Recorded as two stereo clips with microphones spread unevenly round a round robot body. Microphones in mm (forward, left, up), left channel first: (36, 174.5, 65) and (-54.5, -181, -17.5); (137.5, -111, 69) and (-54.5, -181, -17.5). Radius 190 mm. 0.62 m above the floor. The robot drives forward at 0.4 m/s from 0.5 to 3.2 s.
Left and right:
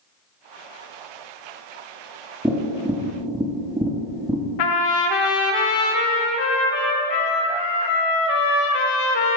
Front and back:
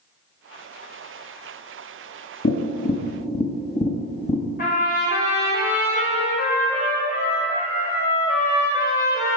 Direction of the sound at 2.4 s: 30° right.